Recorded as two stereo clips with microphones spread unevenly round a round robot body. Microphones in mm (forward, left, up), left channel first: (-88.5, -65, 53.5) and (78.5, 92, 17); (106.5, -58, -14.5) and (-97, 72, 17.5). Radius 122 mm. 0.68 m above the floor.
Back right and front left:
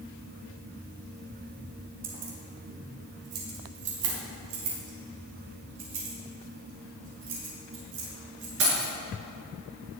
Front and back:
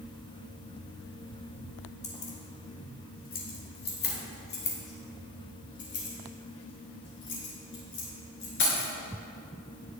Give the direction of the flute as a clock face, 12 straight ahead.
I don't hear a flute.